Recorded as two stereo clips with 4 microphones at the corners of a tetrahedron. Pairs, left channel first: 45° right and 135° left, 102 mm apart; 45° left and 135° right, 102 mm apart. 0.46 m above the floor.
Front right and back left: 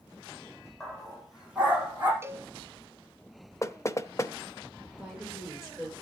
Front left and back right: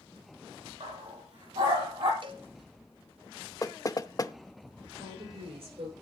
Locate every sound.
0.8 s a dog barking: 135° right, 5.5 m; by 2.1 s 155° right, 4.5 m
2.2 s a cowbell: 160° right, 0.6 m
3.6 s knocking: 5° left, 0.6 m
5.0 s a woman speaking: 140° right, 8.5 m